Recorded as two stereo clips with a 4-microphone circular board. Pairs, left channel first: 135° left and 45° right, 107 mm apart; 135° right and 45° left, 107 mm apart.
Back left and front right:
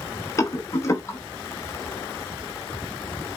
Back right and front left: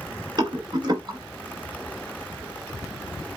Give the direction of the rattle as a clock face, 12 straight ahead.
9 o'clock.